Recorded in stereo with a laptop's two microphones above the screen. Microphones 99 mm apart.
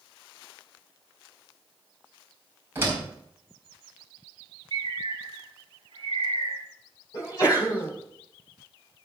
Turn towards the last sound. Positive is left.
turn(degrees=40)  # may be behind; listen again after turning